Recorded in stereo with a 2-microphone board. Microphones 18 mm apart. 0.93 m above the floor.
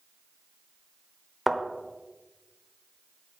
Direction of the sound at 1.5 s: 10° right (ahead or behind).